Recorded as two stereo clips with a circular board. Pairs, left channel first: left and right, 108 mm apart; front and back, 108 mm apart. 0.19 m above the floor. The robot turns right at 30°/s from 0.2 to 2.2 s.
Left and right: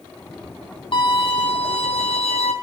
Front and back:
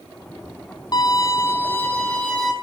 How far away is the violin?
About 4.5 m.